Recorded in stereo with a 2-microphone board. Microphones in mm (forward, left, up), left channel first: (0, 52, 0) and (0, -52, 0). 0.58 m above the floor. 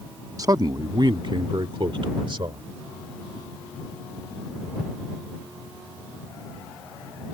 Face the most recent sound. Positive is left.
turn(degrees=-50)  # may be behind; listen again after turning